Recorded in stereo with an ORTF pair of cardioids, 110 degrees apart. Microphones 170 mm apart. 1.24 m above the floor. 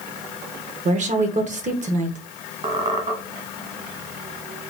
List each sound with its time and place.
0.8 s a woman speaking: 45° right, 0.8 m
2.6 s a squeak: 40° right, 1.1 m